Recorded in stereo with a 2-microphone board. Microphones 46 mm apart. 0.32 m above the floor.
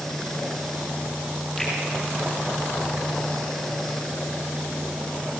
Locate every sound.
1.6 s a finger snap: 5° left (ahead or behind), 7.5 m